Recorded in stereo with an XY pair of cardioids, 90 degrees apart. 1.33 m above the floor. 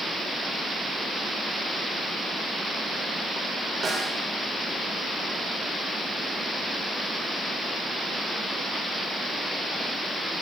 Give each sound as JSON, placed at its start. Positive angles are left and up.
{"t": 3.8, "sound": "a snare drum", "azimuth_deg": -55, "distance_m": 7.0}